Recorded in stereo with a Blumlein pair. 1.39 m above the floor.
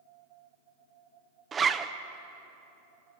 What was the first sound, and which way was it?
A zipper, 15° right.